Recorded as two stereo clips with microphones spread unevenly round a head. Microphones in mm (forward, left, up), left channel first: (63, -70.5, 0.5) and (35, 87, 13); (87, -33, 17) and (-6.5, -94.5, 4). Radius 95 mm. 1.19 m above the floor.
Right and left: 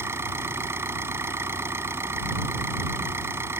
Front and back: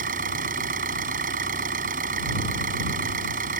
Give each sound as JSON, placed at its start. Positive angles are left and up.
{"t": 0.0, "sound": "an engine running", "azimuth_deg": 180}